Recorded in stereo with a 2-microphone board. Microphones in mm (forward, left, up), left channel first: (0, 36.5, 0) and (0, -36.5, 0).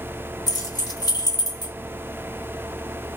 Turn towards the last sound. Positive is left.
turn(degrees=65)  # may be behind; listen again after turning